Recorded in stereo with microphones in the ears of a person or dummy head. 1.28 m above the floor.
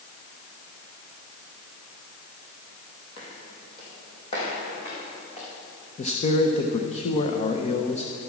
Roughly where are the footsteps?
Left.